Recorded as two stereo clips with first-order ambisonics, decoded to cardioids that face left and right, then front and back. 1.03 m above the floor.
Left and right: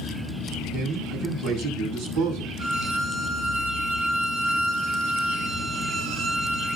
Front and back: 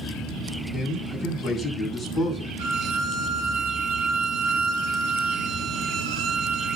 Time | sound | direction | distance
0.7 | a man speaking | 70° right | 7 m
2.6 | a violin | 140° right | 2.5 m